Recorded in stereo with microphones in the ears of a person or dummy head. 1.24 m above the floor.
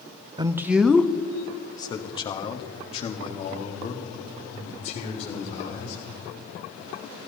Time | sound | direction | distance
0.4 | a man speaking | 20° right (ahead or behind) | 0.5 m